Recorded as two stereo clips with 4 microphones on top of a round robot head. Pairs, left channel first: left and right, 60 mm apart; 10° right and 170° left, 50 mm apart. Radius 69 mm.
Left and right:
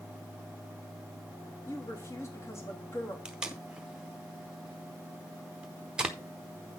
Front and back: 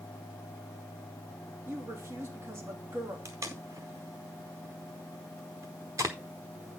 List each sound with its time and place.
1.7 s a woman speaking: 135° left, 3 m
3.2 s tape being pulled: 160° right, 0.7 m